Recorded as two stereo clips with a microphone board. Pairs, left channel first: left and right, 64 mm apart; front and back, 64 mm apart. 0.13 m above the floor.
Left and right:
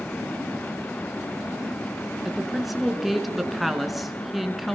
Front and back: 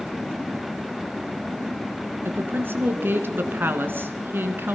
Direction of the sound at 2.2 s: 175° right.